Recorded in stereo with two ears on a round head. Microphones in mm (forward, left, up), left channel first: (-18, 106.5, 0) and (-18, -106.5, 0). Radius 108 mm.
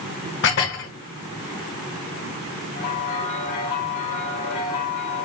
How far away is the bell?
About 1.6 m.